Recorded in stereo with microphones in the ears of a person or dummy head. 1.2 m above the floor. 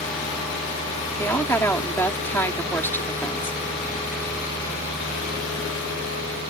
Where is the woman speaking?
10° left (ahead or behind).